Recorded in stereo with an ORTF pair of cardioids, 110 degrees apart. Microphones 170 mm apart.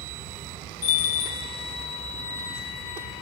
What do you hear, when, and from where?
0.8 s a bell: 70° left, 1.0 m